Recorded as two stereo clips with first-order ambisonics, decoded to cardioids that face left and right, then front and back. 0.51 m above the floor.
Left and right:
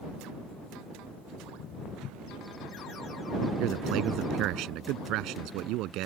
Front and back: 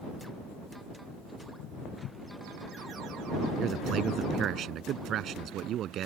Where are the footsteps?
40° left.